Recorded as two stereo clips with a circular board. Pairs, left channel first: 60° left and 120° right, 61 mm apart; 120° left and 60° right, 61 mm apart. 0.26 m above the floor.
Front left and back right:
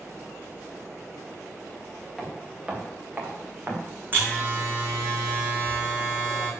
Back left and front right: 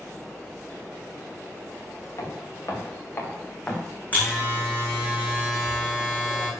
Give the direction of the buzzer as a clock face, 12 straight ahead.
6 o'clock.